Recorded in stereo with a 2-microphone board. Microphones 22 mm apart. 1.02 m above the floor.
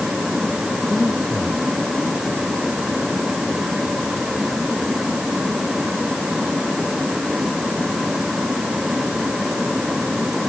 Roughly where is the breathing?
Right.